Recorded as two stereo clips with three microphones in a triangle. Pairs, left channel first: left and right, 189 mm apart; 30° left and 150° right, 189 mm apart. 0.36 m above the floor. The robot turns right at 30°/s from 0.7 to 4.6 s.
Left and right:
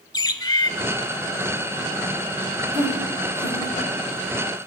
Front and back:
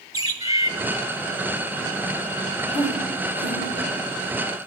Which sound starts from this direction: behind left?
A bird, at 0.1 s.